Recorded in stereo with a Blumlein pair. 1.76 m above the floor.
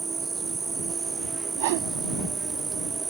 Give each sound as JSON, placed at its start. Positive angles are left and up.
{"t": 0.0, "sound": "an insect", "azimuth_deg": -15}
{"t": 1.6, "sound": "a whoosh", "azimuth_deg": -50}